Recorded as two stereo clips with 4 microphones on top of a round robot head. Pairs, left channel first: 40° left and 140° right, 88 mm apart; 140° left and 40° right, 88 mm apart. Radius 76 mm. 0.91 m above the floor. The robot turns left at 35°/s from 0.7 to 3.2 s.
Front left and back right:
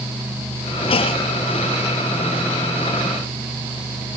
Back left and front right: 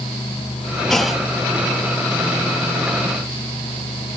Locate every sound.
0.9 s a clunk: 55° left, 0.8 m; by 1.3 s 40° left, 0.8 m